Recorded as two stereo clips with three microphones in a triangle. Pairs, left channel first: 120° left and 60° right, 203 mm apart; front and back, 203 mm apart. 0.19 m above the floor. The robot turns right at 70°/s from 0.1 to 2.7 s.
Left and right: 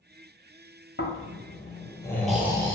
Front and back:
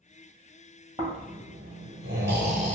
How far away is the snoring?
About 0.7 m.